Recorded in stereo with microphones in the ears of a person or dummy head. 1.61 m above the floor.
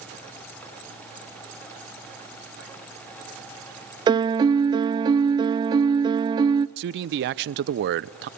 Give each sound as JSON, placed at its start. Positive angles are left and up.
{"t": 4.1, "sound": "a piano", "side_deg": -25, "distance_m": 0.5}
{"t": 6.8, "sound": "a man speaking", "side_deg": -65, "distance_m": 0.7}